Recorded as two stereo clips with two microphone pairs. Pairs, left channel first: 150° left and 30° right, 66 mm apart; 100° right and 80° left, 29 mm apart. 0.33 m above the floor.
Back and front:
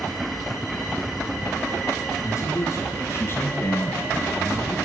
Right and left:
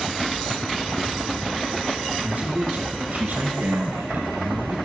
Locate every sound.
2.2 s a man speaking: 120° left, 3.5 m; by 4.8 s 90° left, 1.2 m